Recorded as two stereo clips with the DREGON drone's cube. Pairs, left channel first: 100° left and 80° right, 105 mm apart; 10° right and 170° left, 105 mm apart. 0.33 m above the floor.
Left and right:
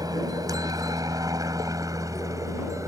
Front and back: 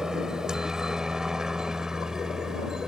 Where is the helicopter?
110° right.